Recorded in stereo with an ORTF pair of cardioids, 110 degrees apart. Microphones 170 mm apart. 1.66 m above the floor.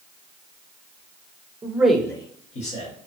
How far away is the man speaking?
About 0.6 m.